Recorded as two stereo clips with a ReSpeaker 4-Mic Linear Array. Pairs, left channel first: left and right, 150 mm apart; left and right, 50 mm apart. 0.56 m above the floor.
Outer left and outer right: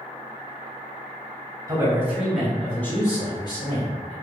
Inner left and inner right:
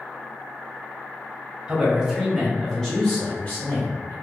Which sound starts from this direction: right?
A man speaking, at 1.7 s.